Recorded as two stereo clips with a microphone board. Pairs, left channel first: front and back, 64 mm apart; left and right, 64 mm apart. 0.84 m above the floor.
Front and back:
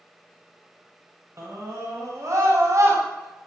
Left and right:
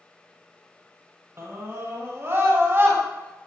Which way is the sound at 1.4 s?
135° right.